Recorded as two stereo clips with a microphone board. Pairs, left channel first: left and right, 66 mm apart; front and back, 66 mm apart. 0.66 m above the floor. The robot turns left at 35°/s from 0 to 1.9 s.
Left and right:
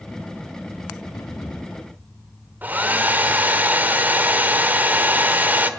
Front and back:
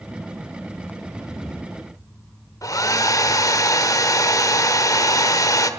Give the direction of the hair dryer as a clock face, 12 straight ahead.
1 o'clock.